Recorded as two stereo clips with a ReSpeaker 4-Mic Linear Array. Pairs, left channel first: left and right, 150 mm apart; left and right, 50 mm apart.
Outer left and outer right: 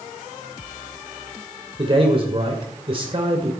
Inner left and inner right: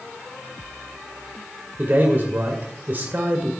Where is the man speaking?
40° right (ahead or behind), 2 m.